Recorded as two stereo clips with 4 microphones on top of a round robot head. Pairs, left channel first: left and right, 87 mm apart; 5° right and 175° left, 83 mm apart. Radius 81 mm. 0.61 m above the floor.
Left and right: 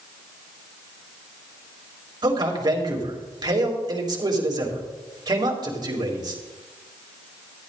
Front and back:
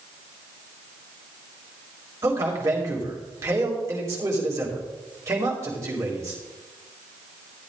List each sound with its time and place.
2.2 s a man speaking: 130° right, 3 m